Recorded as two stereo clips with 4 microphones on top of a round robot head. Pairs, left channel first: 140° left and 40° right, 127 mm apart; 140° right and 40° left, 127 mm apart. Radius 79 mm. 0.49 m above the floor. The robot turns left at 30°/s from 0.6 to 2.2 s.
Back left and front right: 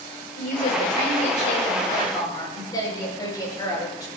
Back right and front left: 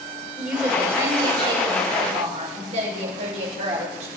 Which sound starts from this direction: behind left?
A woman speaking, at 0.4 s.